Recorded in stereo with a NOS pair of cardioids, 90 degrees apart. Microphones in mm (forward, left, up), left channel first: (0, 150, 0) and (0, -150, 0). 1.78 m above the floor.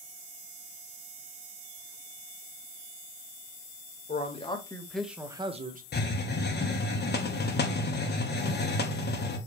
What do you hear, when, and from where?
4.1 s a man speaking: 25° left, 1.5 m; by 5.8 s 30° right, 1.1 m
5.9 s a hiss: 35° left, 1.1 m